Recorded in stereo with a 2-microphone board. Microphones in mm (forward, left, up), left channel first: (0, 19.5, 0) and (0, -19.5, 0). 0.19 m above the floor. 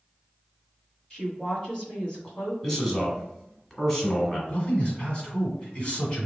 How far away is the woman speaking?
About 1.8 m.